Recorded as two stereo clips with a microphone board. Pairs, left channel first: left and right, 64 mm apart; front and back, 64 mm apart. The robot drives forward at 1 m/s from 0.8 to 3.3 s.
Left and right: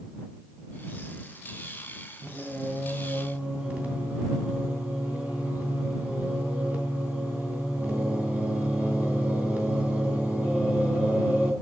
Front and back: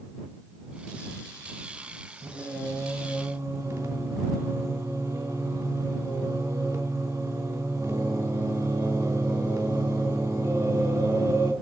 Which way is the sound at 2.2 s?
145° right.